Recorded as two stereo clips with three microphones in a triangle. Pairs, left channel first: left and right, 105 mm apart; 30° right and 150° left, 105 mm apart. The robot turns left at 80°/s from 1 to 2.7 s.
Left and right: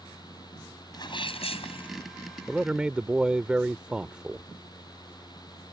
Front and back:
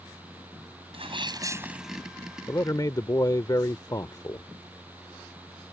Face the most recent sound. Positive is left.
turn(degrees=-15)